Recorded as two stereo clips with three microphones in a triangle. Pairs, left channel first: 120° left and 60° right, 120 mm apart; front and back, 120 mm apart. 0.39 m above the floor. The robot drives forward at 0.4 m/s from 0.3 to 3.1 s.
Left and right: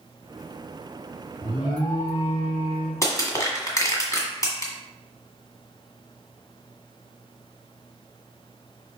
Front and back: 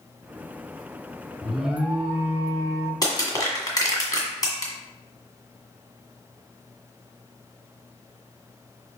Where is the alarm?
90° left, 1.0 m; by 2.9 s 135° left, 1.1 m.